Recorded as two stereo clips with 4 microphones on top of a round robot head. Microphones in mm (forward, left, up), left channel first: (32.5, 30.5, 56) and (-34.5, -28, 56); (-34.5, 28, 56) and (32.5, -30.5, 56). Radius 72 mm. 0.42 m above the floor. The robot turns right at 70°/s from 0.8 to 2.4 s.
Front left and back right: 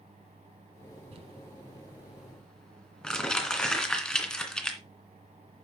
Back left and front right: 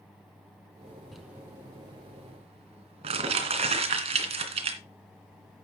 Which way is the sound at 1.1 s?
130° right.